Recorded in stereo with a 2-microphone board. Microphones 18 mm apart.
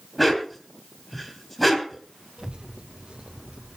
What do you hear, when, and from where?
0.2 s a dog barking: 5° left (ahead or behind), 2.5 m
2.4 s a child speaking: 75° right (ahead or behind), 1.8 m